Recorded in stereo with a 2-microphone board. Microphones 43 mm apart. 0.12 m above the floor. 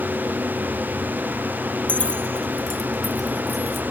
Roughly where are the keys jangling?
Left.